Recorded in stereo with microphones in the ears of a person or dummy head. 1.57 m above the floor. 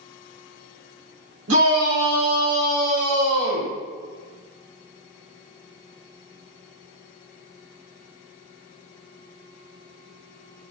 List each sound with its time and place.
1.5 s a shout: 90° right, 1.8 m; by 3.7 s 85° right, 4.5 m